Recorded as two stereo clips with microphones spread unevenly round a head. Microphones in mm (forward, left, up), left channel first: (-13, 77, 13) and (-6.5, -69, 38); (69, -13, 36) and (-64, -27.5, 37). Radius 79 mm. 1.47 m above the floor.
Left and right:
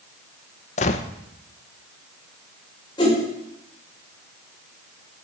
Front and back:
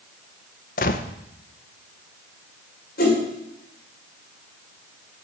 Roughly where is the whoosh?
Ahead left.